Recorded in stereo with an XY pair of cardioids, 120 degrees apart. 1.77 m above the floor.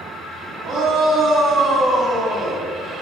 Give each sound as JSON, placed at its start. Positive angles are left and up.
{"t": 0.6, "sound": "a shout", "azimuth_deg": -55, "distance_m": 2.5}